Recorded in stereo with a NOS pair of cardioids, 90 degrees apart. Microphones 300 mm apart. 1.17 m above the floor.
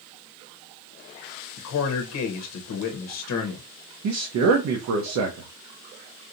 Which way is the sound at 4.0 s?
65° right.